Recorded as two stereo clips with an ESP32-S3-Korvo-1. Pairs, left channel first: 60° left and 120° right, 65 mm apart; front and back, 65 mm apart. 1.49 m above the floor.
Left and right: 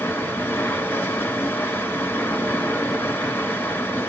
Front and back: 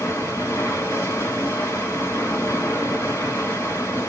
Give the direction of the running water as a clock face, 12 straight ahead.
11 o'clock.